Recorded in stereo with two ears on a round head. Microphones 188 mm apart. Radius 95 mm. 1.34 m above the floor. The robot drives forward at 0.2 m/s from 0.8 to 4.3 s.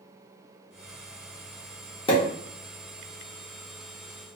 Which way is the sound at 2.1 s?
25° left (ahead or behind).